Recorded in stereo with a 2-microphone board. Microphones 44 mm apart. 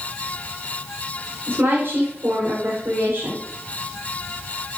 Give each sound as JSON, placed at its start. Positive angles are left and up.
{"t": 1.5, "sound": "a woman speaking", "side_deg": -60, "distance_m": 4.5}